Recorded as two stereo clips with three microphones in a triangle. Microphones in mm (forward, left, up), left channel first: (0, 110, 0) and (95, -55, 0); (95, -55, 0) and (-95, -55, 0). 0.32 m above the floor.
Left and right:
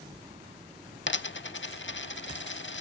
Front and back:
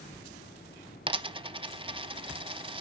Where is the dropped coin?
120° left, 0.5 m.